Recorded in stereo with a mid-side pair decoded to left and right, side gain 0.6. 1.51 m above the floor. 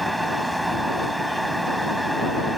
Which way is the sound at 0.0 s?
5° right.